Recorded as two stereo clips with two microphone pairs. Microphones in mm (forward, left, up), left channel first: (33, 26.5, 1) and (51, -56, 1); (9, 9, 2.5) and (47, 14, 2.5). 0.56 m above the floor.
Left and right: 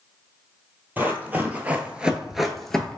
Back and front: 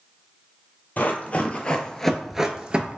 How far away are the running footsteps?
About 0.8 m.